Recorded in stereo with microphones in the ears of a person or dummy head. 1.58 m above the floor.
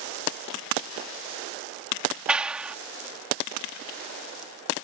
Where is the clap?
Centre (ahead or behind).